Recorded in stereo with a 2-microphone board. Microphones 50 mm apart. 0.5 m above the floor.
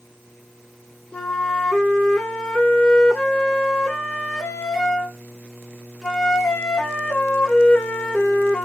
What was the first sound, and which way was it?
A flute, 10° left (ahead or behind).